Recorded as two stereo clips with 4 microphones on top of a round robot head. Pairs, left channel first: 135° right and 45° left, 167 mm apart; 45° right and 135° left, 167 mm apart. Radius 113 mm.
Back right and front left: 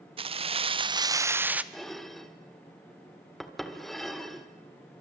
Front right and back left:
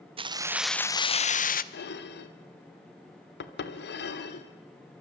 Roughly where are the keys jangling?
Left.